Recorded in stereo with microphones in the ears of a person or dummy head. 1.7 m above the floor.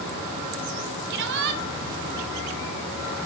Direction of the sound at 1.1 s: 65° right (ahead or behind).